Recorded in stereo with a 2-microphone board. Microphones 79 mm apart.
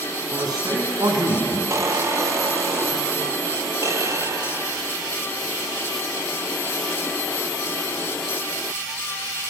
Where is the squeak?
40° right (ahead or behind), 0.6 m.